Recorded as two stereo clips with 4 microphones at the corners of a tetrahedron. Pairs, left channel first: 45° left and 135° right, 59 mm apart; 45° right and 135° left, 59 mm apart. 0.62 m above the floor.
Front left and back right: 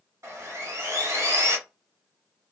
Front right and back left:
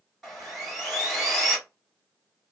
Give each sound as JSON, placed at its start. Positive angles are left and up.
{"t": 0.2, "sound": "sawing", "azimuth_deg": -135, "distance_m": 1.6}